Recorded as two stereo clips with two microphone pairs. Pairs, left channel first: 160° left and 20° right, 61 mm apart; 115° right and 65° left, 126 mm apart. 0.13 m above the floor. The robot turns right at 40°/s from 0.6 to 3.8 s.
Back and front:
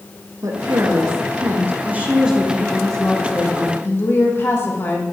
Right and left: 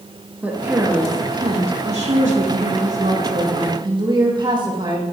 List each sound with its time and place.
0.4 s a woman speaking: 15° right, 6.5 m; by 5.0 s 115° left, 6.5 m